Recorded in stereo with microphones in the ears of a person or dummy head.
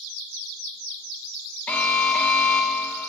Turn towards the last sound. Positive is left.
turn(degrees=10)  # may be behind; listen again after turning